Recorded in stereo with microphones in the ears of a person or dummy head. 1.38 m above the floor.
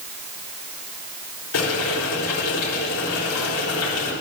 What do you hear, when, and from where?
1.5 s boiling: 75° left (ahead or behind), 3.5 m